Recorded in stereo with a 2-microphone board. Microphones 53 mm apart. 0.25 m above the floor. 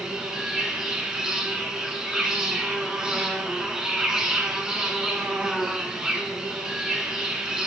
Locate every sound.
0.0 s an insect: 15° right (ahead or behind), 1.5 m